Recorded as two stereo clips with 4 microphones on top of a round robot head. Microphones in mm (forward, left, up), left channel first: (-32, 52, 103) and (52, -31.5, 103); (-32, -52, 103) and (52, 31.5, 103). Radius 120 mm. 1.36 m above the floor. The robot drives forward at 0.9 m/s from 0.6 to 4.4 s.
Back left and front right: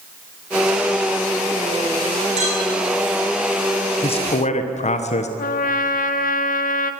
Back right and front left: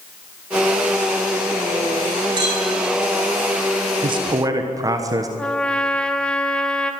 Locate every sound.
2.4 s a clink: 10° right, 7 m
4.0 s a man speaking: 90° left, 1.2 m; by 5.3 s 110° left, 1.3 m
5.4 s a trumpet: 140° left, 1.0 m